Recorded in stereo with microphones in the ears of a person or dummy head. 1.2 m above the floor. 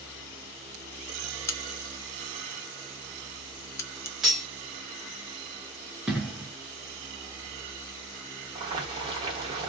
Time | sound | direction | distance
1.5 | a crack | 15° left (ahead or behind) | 0.6 m
4.2 | cutlery clinking | centre (ahead or behind) | 1.2 m
6.1 | an explosion | 5° right (ahead or behind) | 1.0 m
8.6 | boiling | 30° right (ahead or behind) | 1.3 m